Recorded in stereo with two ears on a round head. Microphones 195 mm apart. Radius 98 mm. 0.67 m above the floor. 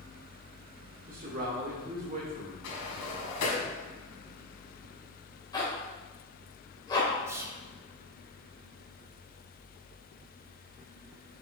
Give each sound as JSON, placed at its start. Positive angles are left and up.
{"t": 1.1, "sound": "a man speaking", "side_deg": -45, "distance_m": 2.0}
{"t": 2.6, "sound": "a sliding door", "side_deg": 80, "distance_m": 2.0}
{"t": 5.5, "sound": "a zipper", "side_deg": 20, "distance_m": 2.5}
{"t": 7.3, "sound": "whispering", "side_deg": -10, "distance_m": 0.5}